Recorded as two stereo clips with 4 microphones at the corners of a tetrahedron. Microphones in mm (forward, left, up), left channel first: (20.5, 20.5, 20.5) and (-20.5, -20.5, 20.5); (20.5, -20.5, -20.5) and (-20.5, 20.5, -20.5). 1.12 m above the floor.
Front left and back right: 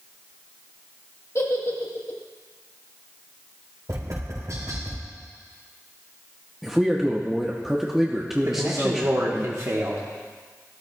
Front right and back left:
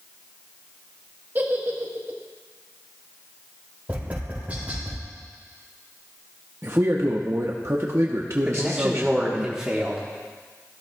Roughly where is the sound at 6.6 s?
Behind left.